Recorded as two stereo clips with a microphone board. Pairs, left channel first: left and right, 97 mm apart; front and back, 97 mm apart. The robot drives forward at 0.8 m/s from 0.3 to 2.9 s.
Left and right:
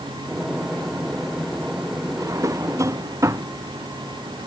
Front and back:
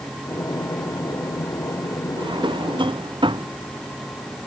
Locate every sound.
2.2 s a drawer: 145° right; by 3.5 s 150° right